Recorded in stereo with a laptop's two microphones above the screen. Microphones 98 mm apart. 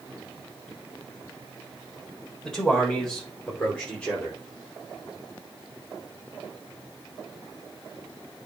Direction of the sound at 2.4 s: 5° left (ahead or behind).